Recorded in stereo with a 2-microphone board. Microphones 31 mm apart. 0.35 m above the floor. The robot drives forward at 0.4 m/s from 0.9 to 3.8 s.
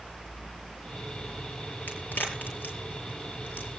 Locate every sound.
1.9 s a crack: 80° left, 6.5 m